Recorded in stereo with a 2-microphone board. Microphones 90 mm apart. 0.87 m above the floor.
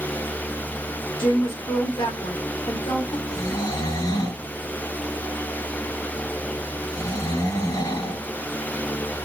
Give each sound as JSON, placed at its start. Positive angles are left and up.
{"t": 1.2, "sound": "a woman speaking", "side_deg": 65, "distance_m": 1.3}
{"t": 3.3, "sound": "snoring", "side_deg": 55, "distance_m": 1.9}